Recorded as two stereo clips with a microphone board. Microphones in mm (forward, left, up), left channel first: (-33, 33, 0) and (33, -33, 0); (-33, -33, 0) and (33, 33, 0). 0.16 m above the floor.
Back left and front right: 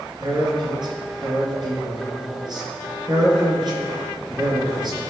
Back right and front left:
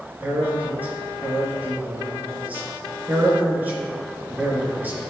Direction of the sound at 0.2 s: 25° right.